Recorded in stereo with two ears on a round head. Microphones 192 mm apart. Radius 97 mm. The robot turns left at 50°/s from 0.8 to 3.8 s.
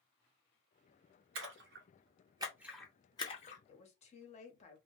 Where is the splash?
65° right (ahead or behind), 0.8 m; by 3.6 s 40° left (ahead or behind), 0.8 m.